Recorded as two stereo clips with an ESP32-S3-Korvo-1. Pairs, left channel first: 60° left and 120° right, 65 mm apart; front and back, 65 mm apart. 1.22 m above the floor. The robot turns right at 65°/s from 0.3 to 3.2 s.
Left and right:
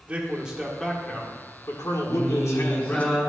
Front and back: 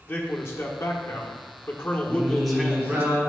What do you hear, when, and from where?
0.1 s a man speaking: 50° right, 1.3 m; by 3.1 s 130° left, 1.3 m
2.1 s singing: 85° left, 3.5 m; by 3.2 s 155° left, 3.5 m